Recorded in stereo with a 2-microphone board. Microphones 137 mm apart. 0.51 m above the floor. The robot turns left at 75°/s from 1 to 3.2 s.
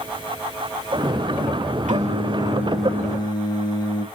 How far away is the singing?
About 0.7 m.